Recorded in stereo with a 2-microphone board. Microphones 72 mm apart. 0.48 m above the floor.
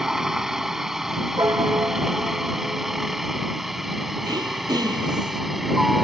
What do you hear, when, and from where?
0.0 s a helicopter: 5° right (ahead or behind)
1.4 s a piano: 45° right (ahead or behind)
4.2 s throat clearing: 65° right (ahead or behind)